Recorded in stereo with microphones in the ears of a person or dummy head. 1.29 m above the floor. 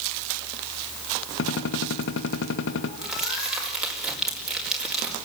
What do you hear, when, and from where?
1.4 s a gunshot: 70° left (ahead or behind), 1.6 m
3.0 s crumpling: centre (ahead or behind), 4.5 m